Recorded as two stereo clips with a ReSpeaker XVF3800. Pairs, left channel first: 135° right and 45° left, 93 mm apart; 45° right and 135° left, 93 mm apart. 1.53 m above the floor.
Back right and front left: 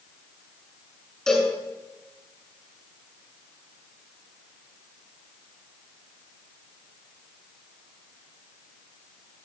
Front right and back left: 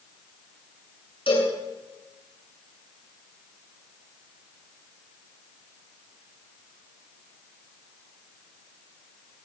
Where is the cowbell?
55° right, 8.5 m.